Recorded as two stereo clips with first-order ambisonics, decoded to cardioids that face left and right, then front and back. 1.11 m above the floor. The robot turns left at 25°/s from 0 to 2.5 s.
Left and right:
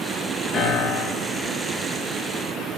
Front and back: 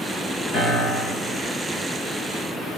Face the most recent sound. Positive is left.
turn(degrees=-15)